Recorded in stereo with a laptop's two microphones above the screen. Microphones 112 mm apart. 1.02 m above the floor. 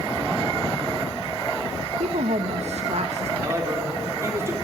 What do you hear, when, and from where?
2.0 s a woman speaking: 70° right (ahead or behind), 0.8 m
3.4 s a man speaking: 25° right (ahead or behind), 3.5 m